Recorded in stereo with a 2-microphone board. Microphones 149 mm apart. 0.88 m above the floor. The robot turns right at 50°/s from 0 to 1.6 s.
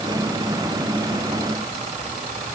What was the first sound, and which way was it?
Only background noise.